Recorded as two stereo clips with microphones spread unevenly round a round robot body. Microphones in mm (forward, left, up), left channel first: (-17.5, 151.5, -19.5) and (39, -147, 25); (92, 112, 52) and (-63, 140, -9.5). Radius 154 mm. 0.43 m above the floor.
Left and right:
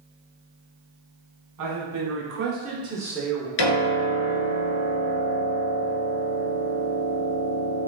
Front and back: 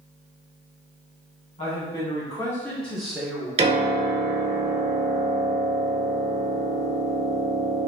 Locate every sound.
1.6 s a man speaking: 80° right, 1.2 m; by 3.5 s 160° left, 1.0 m
3.6 s a piano: 115° left, 1.3 m